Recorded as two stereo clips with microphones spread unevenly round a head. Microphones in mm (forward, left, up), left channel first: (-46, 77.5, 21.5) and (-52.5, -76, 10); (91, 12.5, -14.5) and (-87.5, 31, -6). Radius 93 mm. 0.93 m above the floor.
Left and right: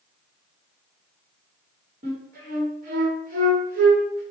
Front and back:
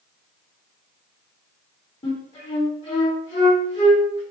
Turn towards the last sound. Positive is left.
turn(degrees=-70)